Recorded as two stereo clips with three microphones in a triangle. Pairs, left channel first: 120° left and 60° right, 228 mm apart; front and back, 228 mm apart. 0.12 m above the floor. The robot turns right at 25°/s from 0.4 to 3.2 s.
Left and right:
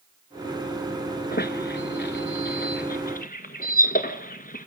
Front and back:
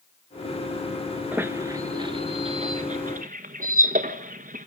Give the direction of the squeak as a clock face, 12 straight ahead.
9 o'clock.